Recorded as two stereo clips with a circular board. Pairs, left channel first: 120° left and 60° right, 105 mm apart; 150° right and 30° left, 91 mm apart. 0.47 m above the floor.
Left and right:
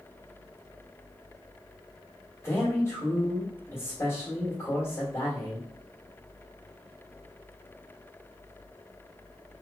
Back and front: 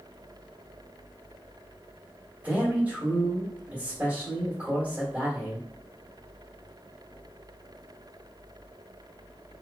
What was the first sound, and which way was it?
A man speaking, 85° left.